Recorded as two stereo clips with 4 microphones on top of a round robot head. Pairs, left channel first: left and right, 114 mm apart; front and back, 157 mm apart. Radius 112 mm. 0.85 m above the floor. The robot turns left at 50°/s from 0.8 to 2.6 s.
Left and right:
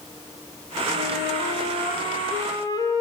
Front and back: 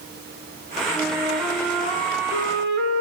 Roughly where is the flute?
Right.